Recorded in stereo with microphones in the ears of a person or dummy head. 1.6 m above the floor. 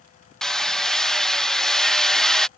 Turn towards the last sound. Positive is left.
turn(degrees=0)  # may be behind; listen again after turning